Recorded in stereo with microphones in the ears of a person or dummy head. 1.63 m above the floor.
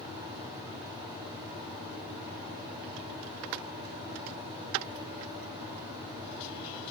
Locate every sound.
0.0 s a fan: 30° right (ahead or behind), 3.5 m